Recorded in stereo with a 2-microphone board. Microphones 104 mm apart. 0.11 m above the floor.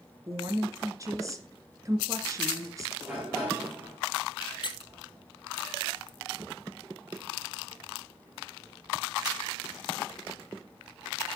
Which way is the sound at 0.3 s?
30° right (ahead or behind).